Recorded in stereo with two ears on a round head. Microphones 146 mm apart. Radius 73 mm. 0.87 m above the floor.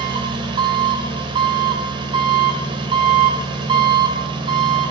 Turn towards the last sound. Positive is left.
turn(degrees=-30)  # may be behind; listen again after turning